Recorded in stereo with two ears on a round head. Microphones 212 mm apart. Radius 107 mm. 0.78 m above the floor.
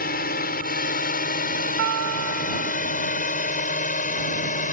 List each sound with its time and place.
0.0 s a drone: 45° left (ahead or behind); by 4.7 s 35° left (ahead or behind)
1.8 s a guitar: 60° right (ahead or behind)